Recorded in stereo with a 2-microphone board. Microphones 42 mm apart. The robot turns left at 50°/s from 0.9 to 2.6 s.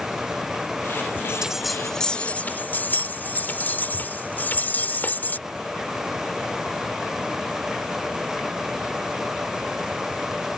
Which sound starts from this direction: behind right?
A bell, at 1.1 s.